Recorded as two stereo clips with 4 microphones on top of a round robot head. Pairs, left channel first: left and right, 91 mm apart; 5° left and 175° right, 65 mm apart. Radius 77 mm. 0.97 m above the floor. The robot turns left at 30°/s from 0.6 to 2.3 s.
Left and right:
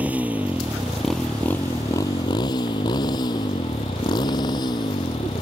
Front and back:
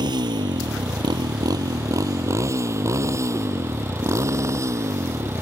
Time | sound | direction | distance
0.0 | a motorcycle | 165° right | ?